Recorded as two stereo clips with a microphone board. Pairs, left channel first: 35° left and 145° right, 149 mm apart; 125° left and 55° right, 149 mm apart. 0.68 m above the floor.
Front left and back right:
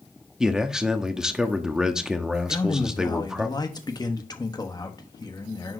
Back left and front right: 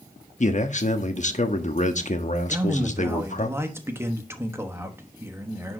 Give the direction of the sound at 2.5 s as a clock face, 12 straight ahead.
12 o'clock.